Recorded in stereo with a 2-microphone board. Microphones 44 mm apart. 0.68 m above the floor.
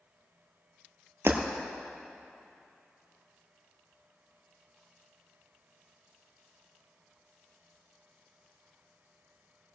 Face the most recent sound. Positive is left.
turn(degrees=-60)  # may be behind; listen again after turning